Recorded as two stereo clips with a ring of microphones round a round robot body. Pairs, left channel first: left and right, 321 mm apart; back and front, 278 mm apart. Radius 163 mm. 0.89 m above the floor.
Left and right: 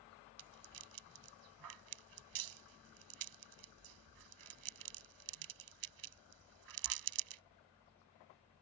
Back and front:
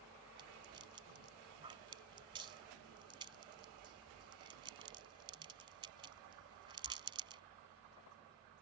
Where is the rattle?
75° right.